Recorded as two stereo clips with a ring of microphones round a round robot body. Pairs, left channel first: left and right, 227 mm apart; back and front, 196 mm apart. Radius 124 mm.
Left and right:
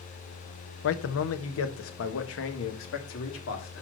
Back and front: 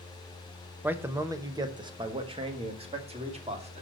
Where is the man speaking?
80° left, 0.9 m; by 3.8 s 55° left, 2.5 m.